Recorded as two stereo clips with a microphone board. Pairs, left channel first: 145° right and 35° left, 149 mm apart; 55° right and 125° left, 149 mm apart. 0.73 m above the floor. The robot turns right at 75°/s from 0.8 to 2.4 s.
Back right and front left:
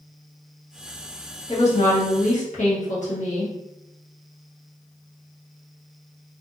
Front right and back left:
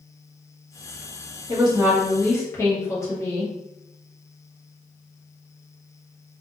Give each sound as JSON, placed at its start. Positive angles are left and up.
{"t": 1.5, "sound": "a woman speaking", "azimuth_deg": 170, "distance_m": 1.1}